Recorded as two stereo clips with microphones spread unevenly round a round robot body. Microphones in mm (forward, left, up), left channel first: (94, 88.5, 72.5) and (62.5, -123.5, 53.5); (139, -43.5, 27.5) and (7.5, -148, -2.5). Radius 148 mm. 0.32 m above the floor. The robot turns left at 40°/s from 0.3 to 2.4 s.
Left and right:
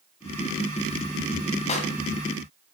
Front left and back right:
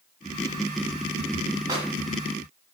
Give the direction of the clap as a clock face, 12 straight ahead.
7 o'clock.